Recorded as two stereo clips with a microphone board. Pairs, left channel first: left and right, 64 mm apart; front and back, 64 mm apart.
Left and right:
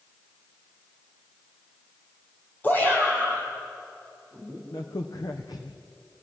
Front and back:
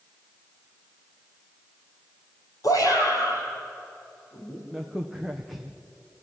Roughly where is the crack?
Left.